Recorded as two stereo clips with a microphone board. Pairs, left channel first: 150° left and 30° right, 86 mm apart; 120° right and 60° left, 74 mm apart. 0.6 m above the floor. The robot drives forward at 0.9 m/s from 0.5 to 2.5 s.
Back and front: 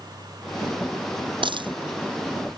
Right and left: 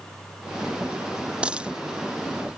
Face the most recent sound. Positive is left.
turn(degrees=-20)